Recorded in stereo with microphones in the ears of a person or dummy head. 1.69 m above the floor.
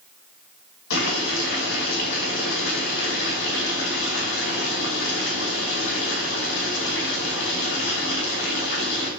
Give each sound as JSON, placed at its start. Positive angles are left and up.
{"t": 0.9, "sound": "boiling", "side_deg": 75, "distance_m": 5.5}